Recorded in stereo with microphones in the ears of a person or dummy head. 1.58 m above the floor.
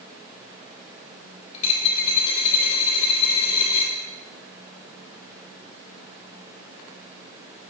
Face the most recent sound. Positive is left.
turn(degrees=30)  # may be behind; listen again after turning